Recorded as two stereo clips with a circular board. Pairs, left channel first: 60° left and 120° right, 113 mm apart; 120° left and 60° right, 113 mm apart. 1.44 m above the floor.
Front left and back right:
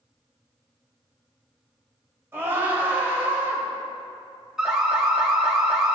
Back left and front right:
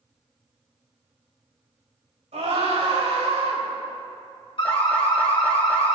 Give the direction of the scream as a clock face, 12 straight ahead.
2 o'clock.